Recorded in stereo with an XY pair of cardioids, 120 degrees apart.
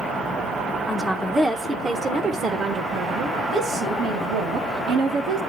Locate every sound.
0.9 s a woman speaking: 10° left, 1.0 m; by 5.4 s 75° right, 3 m